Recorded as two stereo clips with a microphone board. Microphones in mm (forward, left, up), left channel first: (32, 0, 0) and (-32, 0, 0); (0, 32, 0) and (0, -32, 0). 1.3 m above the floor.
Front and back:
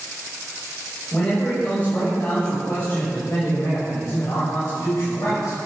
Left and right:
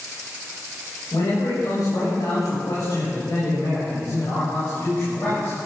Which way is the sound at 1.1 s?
70° left.